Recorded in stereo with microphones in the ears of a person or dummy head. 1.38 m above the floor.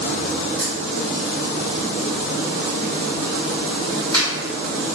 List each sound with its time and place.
0.6 s a dropped coin: 25° right (ahead or behind), 1.5 m